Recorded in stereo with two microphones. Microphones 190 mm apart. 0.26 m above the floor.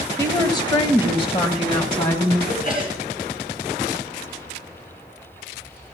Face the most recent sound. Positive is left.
turn(degrees=50)  # may be behind; listen again after turning